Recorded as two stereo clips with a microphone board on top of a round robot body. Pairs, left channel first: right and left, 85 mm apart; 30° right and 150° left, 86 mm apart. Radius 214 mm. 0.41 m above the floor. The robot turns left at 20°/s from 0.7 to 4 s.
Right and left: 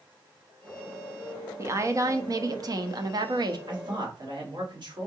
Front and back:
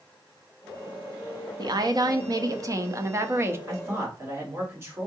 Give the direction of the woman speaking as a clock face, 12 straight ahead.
7 o'clock.